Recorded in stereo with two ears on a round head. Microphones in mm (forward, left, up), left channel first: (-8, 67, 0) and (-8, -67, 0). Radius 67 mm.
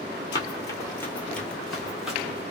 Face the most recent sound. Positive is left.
turn(degrees=-5)  # may be behind; listen again after turning